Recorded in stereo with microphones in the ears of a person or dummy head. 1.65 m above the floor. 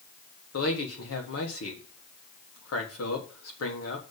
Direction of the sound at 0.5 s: 75° left (ahead or behind).